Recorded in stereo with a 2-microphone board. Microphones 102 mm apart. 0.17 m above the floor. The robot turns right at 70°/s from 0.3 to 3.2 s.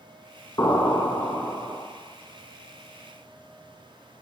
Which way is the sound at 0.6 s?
135° left.